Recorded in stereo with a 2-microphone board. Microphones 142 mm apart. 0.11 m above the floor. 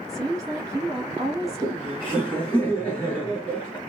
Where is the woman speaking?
25° right (ahead or behind), 2 m.